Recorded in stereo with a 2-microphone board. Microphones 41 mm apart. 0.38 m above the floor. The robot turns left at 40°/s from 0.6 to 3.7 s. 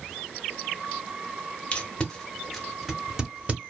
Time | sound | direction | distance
1.7 | tape being pulled | 35° left (ahead or behind) | 0.9 m